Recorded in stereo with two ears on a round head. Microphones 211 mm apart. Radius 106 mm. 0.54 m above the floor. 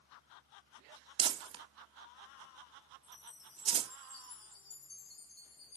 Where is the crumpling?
20° right (ahead or behind), 0.5 m.